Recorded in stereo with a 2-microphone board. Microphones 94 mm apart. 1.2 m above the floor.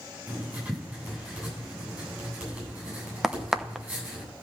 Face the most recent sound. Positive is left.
turn(degrees=-5)  # may be behind; listen again after turning